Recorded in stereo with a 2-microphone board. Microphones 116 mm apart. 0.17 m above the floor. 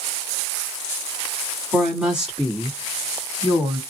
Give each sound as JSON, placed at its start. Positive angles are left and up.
{"t": 1.7, "sound": "a woman speaking", "side_deg": 0, "distance_m": 1.7}